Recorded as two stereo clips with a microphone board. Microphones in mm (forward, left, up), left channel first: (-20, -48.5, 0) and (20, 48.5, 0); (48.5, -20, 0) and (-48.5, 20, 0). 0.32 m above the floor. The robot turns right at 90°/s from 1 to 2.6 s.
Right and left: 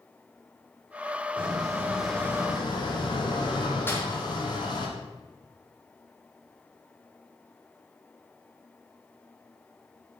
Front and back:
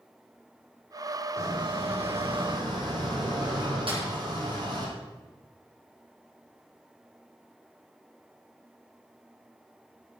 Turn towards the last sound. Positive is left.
turn(degrees=180)